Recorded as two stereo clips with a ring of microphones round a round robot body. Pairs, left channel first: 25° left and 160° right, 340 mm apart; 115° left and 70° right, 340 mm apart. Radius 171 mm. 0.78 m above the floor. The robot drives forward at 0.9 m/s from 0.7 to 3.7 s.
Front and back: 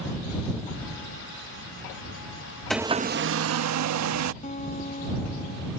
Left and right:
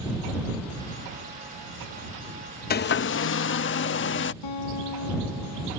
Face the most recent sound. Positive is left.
turn(degrees=90)